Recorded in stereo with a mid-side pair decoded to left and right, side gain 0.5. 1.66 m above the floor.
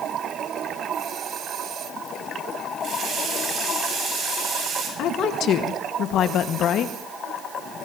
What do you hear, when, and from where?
2.8 s a running tap: 55° right, 6 m
5.0 s a woman speaking: 65° left, 1.4 m